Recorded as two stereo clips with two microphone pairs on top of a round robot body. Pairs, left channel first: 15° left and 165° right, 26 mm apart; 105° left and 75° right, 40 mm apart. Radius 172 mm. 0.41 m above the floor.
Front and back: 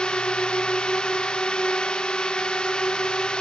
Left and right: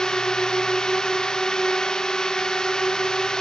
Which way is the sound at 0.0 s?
40° left.